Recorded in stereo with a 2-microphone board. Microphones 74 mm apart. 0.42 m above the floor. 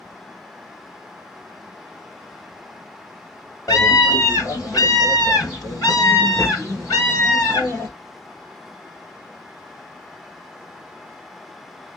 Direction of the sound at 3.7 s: 50° left (ahead or behind).